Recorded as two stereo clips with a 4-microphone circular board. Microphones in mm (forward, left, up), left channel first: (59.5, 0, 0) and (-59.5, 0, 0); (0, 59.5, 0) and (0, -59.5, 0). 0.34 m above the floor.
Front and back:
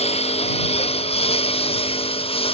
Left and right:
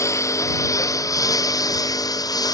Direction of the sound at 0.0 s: 25° left.